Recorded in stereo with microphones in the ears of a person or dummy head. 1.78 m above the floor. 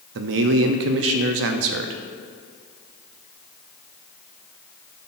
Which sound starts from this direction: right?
A man speaking, at 0.1 s.